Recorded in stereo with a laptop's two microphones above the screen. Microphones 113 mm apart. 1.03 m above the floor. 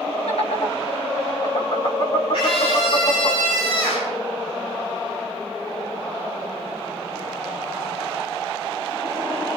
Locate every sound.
0.3 s laughter: 75° left (ahead or behind), 6.5 m; by 3.3 s 80° left, 8.5 m
2.3 s a scream: 60° left (ahead or behind), 4.5 m